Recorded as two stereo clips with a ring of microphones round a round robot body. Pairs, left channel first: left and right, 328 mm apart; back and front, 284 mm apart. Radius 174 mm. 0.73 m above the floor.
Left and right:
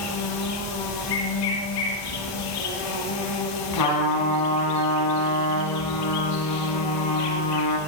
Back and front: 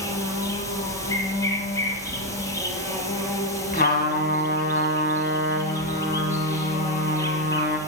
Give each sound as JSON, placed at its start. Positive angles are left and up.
{"t": 0.0, "sound": "an insect", "azimuth_deg": 100, "distance_m": 4.0}
{"t": 3.7, "sound": "a trumpet", "azimuth_deg": 125, "distance_m": 4.5}